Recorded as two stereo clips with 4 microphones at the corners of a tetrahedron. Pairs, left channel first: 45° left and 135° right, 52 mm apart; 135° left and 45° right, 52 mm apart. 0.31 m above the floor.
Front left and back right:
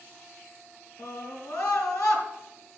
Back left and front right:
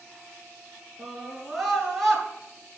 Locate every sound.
1.0 s a scream: 40° left, 5 m